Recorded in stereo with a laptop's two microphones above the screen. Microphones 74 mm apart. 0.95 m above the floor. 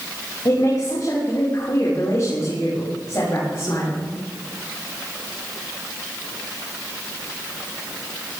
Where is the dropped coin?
I don't hear a dropped coin.